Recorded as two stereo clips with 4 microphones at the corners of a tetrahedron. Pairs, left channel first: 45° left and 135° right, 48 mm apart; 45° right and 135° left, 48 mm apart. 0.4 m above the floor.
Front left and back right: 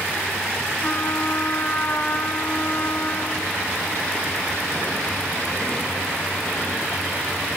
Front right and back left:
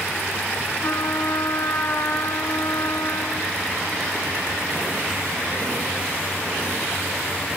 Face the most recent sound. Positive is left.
turn(degrees=-15)